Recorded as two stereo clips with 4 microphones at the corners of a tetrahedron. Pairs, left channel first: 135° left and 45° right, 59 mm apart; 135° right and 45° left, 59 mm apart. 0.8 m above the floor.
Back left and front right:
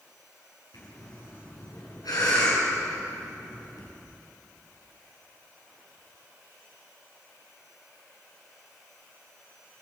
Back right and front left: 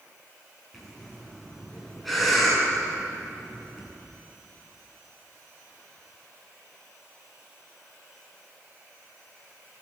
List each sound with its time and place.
0.7 s breathing: 135° left, 8.5 m